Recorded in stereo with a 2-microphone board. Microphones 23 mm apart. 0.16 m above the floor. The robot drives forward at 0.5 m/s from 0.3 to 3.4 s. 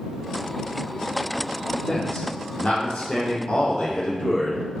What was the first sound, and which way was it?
A man speaking, 65° left (ahead or behind).